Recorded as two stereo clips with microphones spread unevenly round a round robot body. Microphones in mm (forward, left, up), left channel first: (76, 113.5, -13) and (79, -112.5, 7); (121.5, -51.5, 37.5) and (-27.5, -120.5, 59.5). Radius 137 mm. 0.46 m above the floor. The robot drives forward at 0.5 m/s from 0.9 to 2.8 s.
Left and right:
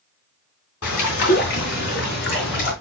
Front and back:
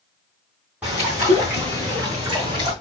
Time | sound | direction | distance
0.8 | a bird | 120° left | 3.5 m